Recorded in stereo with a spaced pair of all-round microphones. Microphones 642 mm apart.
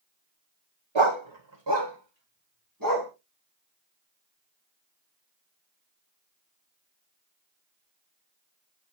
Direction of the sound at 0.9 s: 45° right (ahead or behind).